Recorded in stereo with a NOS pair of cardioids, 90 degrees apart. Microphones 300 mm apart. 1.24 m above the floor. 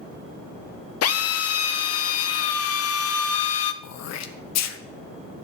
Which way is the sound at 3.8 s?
60° left.